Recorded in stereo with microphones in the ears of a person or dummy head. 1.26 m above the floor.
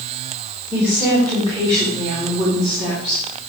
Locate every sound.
0.7 s a woman speaking: 15° right (ahead or behind), 3 m; by 3.5 s 40° right (ahead or behind), 3.5 m